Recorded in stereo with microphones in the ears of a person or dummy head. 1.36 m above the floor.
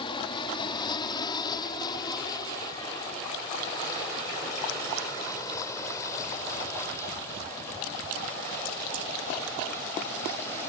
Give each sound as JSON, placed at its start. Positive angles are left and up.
{"t": 0.0, "sound": "an aircraft", "side_deg": 30}